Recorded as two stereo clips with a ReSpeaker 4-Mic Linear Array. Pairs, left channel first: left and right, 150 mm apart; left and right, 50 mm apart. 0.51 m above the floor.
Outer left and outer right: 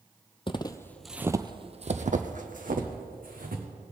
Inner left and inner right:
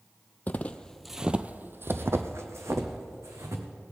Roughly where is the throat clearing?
No throat clearing in this recording.